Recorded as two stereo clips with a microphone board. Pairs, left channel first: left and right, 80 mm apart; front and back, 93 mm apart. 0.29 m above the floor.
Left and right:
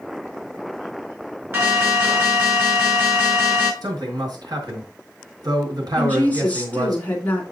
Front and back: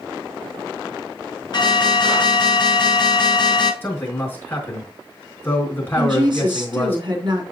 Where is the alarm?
35° right, 4.5 m.